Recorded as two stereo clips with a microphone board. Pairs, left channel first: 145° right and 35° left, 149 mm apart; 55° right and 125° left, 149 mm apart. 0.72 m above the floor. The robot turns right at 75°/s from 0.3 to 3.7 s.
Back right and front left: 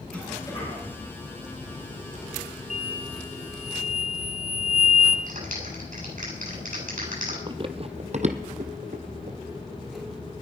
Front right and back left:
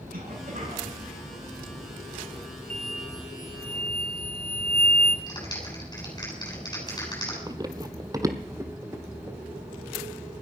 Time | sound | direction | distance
0.1 | a cough | 135° left | 9.5 m
2.7 | an explosion | 50° right | 1.0 m
5.3 | a clap | 10° left | 7.5 m
7.5 | running footsteps | 75° left | 0.9 m